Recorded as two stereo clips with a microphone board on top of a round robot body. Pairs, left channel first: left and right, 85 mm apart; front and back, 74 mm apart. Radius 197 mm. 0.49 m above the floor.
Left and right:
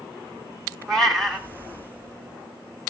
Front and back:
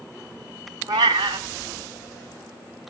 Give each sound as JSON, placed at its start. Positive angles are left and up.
{"t": 0.9, "sound": "a cat meowing", "azimuth_deg": 175, "distance_m": 0.5}